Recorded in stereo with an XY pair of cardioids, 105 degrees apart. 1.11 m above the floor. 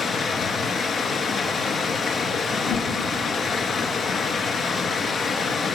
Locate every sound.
0.0 s running water: 55° left, 3 m
2.6 s a whoosh: 70° left, 3 m